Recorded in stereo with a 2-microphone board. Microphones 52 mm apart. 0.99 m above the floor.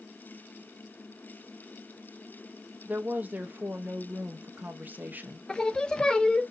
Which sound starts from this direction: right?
A woman speaking, at 2.9 s.